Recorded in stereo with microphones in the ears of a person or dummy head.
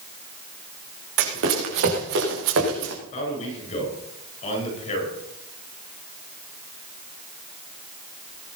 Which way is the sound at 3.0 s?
35° left (ahead or behind).